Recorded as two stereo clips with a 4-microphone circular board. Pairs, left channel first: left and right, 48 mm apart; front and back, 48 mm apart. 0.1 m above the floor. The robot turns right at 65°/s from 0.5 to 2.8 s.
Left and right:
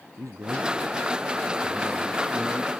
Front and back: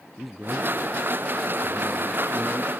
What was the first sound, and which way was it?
A man speaking, 90° right.